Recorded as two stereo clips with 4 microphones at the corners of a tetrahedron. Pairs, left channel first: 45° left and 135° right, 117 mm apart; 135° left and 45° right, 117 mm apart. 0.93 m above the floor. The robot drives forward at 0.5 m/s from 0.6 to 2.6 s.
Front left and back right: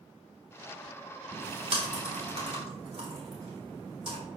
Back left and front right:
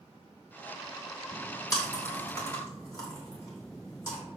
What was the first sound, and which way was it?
Chewing, 165° right.